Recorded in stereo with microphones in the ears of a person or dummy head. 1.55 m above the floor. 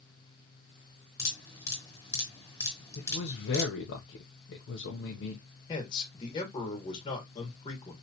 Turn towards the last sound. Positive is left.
turn(degrees=30)  # may be behind; listen again after turning